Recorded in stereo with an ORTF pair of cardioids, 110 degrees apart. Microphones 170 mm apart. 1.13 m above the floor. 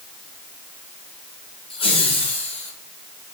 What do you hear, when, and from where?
1.7 s laughter: 30° left, 4 m; by 2.7 s 40° left, 4.5 m